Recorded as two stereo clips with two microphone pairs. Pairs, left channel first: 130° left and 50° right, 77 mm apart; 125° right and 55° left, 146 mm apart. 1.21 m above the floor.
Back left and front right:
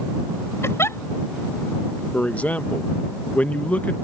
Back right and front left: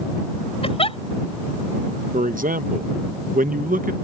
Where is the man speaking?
60° left.